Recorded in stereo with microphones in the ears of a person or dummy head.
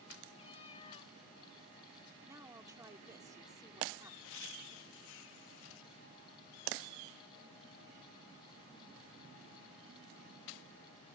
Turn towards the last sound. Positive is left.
turn(degrees=70)  # may be behind; listen again after turning